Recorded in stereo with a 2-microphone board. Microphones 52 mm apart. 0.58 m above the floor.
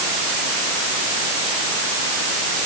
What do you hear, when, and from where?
Only background noise.